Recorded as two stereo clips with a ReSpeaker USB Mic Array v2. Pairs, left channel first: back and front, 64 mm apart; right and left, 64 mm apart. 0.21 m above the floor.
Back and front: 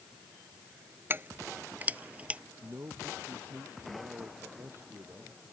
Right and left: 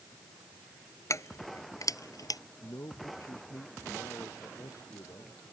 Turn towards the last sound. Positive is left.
turn(degrees=-50)